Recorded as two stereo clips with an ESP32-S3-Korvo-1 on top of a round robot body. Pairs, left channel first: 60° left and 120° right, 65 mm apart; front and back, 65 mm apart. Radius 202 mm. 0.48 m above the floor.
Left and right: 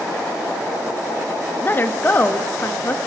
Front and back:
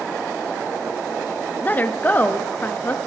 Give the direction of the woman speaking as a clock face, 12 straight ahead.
11 o'clock.